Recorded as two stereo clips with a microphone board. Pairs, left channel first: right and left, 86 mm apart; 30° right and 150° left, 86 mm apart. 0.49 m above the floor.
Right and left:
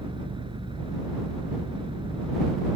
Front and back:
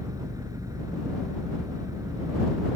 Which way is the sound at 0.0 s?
100° left.